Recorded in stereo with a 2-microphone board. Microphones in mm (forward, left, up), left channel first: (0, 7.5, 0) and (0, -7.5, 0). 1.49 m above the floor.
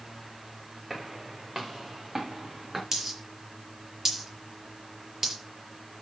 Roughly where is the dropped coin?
Right.